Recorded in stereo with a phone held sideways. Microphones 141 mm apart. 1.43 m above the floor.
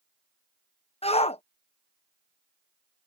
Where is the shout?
50° left (ahead or behind).